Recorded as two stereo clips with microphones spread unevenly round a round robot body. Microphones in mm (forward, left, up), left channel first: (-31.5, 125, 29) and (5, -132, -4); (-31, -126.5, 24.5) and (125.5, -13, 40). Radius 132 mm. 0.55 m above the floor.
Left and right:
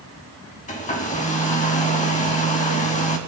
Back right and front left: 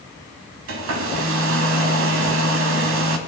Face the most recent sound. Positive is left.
turn(degrees=35)